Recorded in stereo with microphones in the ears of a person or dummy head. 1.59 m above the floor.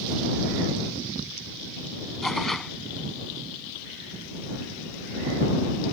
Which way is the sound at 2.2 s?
5° left (ahead or behind).